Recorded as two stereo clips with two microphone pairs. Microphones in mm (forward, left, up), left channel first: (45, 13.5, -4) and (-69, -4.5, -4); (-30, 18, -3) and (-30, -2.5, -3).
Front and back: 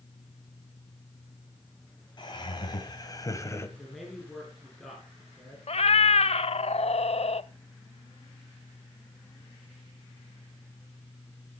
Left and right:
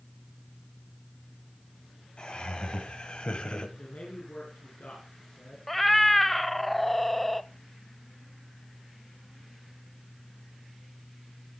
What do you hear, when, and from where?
2.2 s laughter: 55° left, 3.5 m; by 3.7 s 70° left, 1.6 m
3.8 s a man speaking: 100° left, 4 m
5.7 s a cat meowing: 5° left, 0.5 m